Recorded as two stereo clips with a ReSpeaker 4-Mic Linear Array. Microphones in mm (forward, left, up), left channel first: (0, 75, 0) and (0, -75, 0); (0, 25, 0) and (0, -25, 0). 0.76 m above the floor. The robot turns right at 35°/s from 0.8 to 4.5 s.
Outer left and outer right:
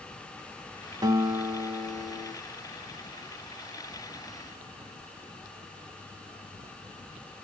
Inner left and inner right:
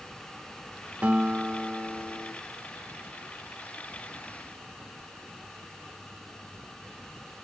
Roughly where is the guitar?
Ahead right.